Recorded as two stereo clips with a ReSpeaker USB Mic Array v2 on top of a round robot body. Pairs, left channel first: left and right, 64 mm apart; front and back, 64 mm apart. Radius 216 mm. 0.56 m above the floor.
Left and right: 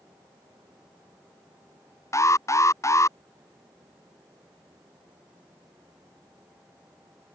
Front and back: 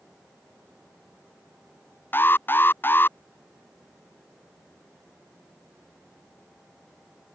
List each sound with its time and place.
2.1 s an alarm: 55° left